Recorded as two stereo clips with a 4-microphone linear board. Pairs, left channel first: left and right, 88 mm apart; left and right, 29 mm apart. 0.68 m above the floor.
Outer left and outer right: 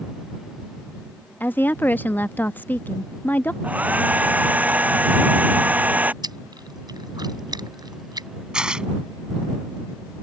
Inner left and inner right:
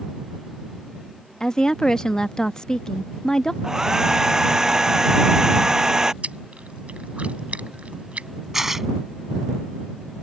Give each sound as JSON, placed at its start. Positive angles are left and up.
{"t": 1.4, "sound": "a woman speaking", "side_deg": 20}
{"t": 3.6, "sound": "a hair dryer", "side_deg": -20}
{"t": 6.2, "sound": "chewing", "side_deg": -50}
{"t": 8.5, "sound": "tearing paper", "side_deg": -10}